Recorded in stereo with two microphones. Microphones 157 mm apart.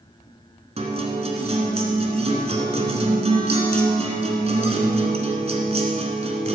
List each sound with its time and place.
0.8 s a guitar: 40° right (ahead or behind), 1.3 m